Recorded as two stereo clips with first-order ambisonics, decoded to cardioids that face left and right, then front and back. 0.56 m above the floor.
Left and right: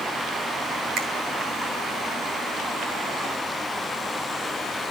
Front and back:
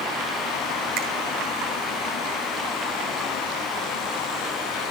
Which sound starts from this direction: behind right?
A finger snap, at 1.0 s.